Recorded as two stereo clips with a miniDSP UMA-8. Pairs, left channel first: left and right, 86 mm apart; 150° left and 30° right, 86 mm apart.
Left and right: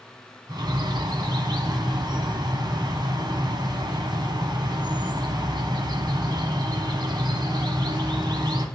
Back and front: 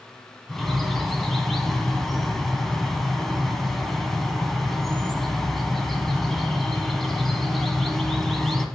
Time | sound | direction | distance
0.5 | a bird | 120° right | 1.0 m